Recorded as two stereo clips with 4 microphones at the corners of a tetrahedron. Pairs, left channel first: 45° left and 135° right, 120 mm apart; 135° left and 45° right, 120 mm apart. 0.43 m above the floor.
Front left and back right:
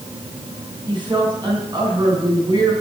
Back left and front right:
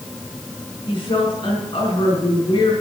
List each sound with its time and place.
0.9 s a woman speaking: 175° left, 4.5 m